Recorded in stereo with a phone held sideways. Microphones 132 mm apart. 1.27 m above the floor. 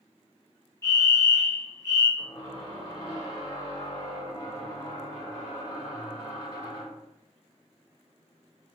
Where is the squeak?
35° left (ahead or behind), 1.4 m.